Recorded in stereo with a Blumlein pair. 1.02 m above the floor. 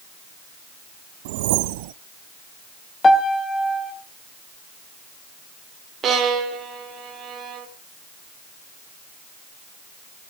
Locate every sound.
1.2 s a whoosh: 50° right, 0.6 m
3.0 s a piano: 15° left, 1.1 m
6.0 s a violin: 25° right, 1.6 m